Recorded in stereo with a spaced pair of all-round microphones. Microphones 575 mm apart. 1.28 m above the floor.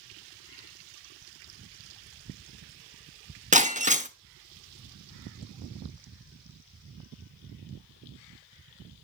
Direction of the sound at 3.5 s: 15° right (ahead or behind).